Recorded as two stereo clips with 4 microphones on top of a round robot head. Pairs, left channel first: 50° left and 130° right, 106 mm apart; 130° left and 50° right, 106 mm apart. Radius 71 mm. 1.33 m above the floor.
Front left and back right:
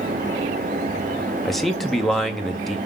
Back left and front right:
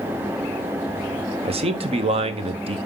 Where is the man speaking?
35° right, 1.0 m.